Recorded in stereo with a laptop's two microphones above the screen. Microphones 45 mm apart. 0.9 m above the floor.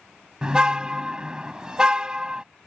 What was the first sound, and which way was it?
A car horn, 15° right (ahead or behind).